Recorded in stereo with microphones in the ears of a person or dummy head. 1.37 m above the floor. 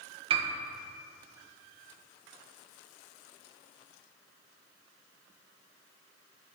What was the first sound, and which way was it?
A piano, 25° right (ahead or behind).